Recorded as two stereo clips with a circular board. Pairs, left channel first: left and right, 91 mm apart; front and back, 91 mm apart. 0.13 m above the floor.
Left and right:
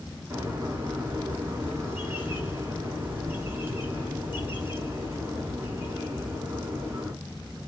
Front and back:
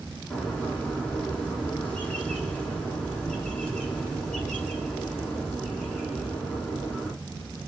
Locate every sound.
0.3 s a bird: 75° right, 1.5 m